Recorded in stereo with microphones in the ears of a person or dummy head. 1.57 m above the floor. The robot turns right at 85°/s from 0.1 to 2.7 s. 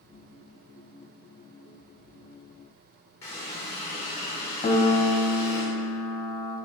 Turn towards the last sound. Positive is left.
turn(degrees=25)  # may be behind; listen again after turning